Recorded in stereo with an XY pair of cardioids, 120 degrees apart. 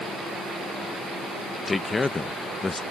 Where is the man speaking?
25° left.